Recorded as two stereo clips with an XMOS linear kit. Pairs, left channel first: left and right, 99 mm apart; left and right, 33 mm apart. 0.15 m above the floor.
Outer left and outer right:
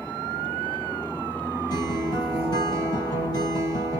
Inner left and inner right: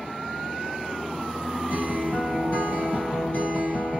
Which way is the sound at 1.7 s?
45° left (ahead or behind).